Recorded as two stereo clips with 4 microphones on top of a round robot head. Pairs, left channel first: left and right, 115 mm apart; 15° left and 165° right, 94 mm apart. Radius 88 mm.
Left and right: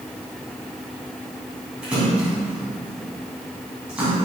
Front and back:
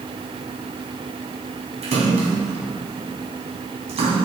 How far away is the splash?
About 2 m.